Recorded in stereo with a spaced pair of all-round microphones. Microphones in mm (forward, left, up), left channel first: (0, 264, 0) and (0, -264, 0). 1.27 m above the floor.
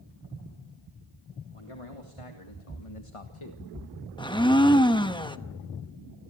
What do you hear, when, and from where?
1.5 s a man speaking: 70° left (ahead or behind), 3.5 m; by 3.6 s 50° left (ahead or behind), 1.5 m
4.2 s a blender: 10° left (ahead or behind), 1.0 m